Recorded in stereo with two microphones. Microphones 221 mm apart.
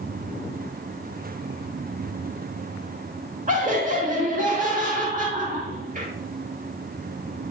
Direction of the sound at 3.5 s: 35° right (ahead or behind).